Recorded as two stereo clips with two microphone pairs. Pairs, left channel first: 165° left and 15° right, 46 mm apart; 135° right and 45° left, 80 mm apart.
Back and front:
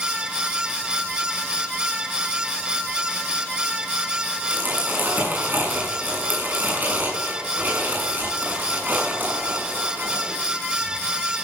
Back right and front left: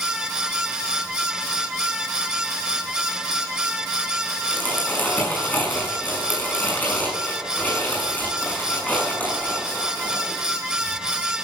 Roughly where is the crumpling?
Ahead right.